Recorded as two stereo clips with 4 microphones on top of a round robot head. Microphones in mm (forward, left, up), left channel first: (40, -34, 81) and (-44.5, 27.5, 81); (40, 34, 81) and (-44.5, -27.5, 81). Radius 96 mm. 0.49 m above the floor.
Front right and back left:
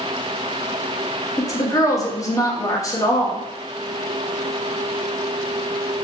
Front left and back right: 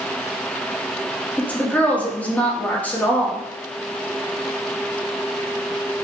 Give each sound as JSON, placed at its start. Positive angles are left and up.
{"t": 1.4, "sound": "a woman speaking", "azimuth_deg": -30, "distance_m": 0.8}